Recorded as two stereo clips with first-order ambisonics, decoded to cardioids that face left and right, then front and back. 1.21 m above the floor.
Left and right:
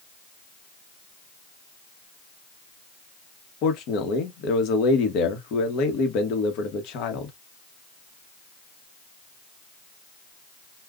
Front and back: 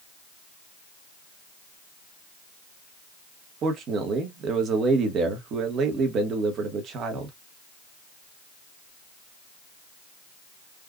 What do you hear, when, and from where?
3.6 s a man speaking: 125° left, 1.1 m